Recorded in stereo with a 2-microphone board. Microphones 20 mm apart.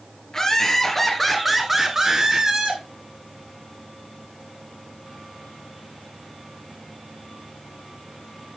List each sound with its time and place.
0.3 s laughter: 25° left (ahead or behind), 2.5 m; by 2.8 s 40° right (ahead or behind), 2.0 m